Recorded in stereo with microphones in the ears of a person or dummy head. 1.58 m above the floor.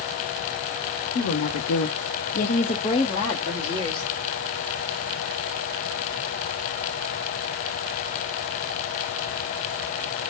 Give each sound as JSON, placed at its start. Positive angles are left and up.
{"t": 1.1, "sound": "a woman speaking", "side_deg": 55, "distance_m": 0.7}